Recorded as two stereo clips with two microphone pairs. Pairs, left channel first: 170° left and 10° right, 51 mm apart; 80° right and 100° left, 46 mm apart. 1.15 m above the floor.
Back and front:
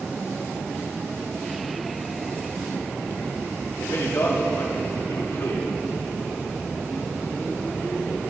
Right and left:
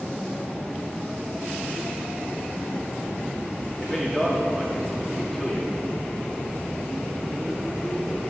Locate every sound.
3.8 s a man speaking: 170° right, 3 m